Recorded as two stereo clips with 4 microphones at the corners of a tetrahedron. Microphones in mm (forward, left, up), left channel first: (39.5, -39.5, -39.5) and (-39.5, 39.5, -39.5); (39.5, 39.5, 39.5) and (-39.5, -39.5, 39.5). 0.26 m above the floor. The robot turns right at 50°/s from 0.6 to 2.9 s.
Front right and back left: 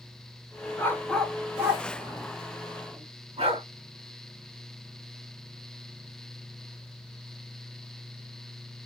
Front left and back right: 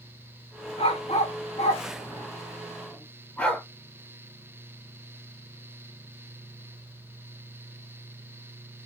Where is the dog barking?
20° left, 1.0 m; by 3.6 s 125° left, 1.0 m.